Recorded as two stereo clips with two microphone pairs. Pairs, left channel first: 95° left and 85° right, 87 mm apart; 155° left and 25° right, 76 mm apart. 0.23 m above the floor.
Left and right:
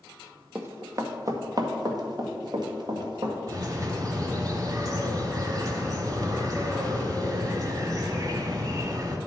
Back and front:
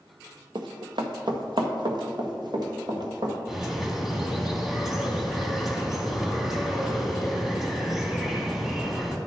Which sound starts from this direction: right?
A bird, at 3.5 s.